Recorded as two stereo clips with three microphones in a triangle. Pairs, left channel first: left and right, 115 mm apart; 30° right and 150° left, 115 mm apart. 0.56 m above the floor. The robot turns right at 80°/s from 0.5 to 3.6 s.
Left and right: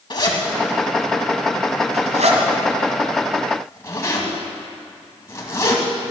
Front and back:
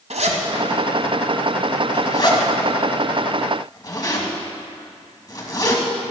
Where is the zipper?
135° left, 2 m; by 5.8 s 25° left, 2 m.